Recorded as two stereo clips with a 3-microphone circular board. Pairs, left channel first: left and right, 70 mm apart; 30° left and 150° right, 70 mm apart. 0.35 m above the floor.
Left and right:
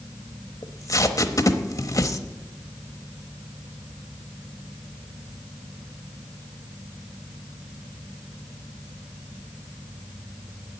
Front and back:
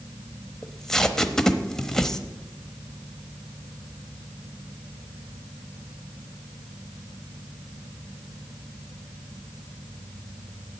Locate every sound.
0.6 s tape being pulled: 110° left, 0.9 m